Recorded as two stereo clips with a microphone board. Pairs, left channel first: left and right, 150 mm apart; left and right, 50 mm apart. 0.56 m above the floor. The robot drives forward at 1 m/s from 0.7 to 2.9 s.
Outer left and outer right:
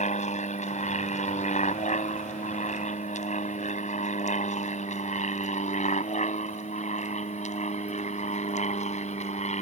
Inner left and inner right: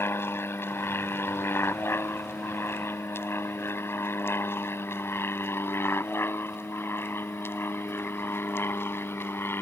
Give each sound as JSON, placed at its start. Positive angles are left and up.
{"t": 0.0, "sound": "an aircraft", "side_deg": 55}